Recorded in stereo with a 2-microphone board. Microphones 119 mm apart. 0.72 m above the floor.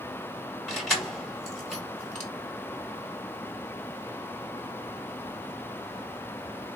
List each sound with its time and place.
0.7 s keys jangling: 5° left (ahead or behind), 1.1 m